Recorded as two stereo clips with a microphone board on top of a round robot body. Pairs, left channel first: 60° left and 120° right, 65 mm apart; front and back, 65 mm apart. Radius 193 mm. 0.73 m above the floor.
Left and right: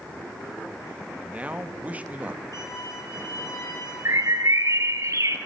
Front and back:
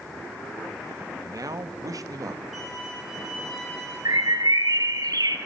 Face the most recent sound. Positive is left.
turn(degrees=-160)